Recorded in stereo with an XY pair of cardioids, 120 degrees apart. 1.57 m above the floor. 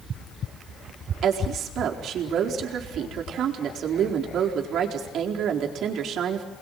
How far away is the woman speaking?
About 4.5 m.